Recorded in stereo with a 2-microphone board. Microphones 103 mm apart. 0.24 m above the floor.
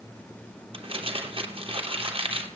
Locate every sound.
0.7 s crumpling: 60° right (ahead or behind), 3 m